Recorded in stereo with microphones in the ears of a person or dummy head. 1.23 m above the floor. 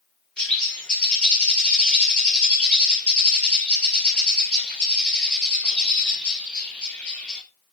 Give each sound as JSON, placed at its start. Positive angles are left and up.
{"t": 0.4, "sound": "a bird", "side_deg": 10, "distance_m": 1.2}